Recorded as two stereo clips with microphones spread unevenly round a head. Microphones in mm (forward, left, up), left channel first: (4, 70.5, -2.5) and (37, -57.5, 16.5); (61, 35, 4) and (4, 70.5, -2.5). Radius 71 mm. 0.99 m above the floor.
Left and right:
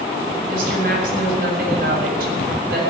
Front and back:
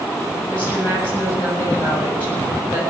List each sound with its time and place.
0.5 s a woman speaking: 110° right, 7 m